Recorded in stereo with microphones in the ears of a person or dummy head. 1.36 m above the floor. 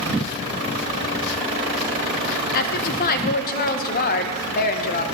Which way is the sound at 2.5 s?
45° left (ahead or behind).